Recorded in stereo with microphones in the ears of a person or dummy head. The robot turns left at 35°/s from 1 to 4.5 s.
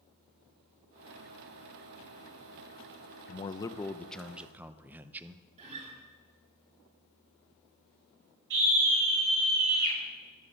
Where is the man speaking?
35° left, 0.7 m; by 5.5 s 10° right, 0.7 m.